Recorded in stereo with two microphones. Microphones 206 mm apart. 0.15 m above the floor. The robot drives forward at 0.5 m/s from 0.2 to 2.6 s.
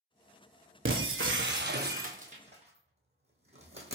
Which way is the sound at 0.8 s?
80° right.